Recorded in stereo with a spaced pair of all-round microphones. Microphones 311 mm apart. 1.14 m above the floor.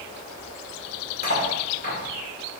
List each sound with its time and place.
1.2 s cutlery clinking: 30° left (ahead or behind), 3 m